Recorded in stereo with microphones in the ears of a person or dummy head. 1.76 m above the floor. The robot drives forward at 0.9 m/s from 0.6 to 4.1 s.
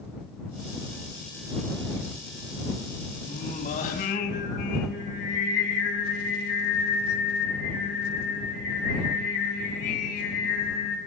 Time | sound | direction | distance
3.3 | singing | 40° left (ahead or behind) | 5.5 m